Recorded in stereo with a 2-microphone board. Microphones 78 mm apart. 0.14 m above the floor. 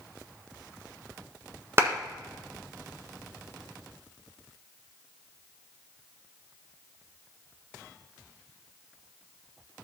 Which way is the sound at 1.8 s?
35° right (ahead or behind).